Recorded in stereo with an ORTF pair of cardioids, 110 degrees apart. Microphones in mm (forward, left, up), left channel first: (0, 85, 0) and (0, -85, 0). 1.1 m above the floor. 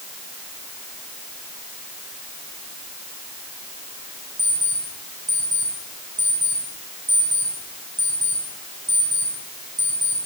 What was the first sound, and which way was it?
An alarm clock, 15° right.